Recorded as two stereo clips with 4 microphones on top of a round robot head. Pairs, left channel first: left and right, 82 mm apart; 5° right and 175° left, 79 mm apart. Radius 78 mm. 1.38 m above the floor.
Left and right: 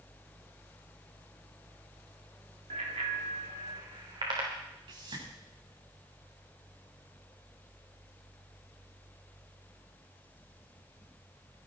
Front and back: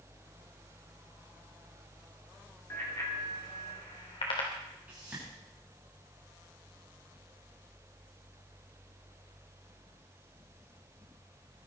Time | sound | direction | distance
2.7 | a bicycle bell | 75° right | 2.5 m
4.9 | a whoosh | 110° right | 9 m